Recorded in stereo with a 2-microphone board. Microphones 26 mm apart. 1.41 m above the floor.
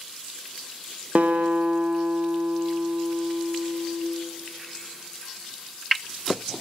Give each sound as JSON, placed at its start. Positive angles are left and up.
{"t": 1.1, "sound": "a guitar", "side_deg": -55, "distance_m": 1.0}